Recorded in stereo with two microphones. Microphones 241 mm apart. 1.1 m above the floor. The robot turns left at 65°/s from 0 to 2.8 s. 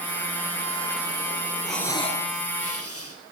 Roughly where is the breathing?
Behind.